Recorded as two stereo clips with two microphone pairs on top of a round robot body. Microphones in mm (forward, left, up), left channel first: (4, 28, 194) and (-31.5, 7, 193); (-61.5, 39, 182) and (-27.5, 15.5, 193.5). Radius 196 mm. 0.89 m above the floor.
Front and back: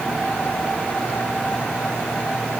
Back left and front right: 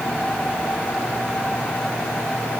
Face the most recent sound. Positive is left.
No sound to turn to.